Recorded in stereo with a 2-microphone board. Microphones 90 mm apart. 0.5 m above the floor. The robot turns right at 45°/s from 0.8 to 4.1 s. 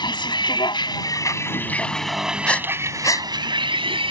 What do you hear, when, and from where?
0.0 s a vehicle: 120° left; by 4.1 s 90° right
2.5 s breathing: 10° left (ahead or behind); by 3.3 s 45° left (ahead or behind)